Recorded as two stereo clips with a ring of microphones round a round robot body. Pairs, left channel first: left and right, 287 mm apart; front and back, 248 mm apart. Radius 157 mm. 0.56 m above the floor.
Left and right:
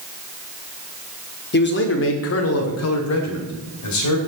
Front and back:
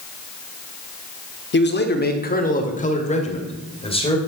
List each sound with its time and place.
1.5 s a man speaking: 40° left, 1.4 m; by 4.2 s 70° left, 2.5 m